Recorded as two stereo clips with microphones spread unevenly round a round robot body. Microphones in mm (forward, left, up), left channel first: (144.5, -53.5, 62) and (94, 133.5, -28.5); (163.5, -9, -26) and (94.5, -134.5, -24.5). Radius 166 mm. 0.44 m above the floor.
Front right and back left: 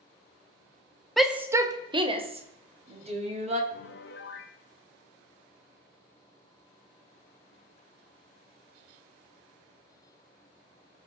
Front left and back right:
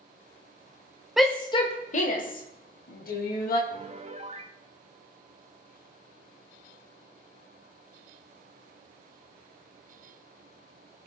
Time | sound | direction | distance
1.2 | a shout | 155° left | 0.9 m
3.7 | a piano | 125° right | 0.8 m